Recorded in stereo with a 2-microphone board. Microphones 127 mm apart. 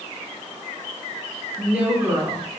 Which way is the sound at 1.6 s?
10° right (ahead or behind).